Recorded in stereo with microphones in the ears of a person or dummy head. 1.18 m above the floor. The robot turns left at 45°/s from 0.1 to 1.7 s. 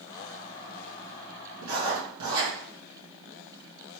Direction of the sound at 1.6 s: 75° right (ahead or behind).